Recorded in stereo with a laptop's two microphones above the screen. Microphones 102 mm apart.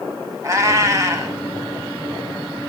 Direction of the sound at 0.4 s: 30° right (ahead or behind).